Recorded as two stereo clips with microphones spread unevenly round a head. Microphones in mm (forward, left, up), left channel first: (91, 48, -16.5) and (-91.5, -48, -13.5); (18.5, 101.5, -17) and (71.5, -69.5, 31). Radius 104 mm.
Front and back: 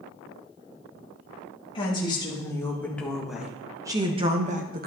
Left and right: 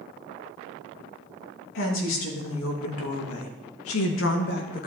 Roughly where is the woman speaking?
Left.